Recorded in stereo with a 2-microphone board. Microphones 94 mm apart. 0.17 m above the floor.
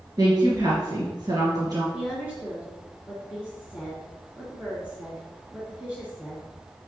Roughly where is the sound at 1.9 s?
Centre.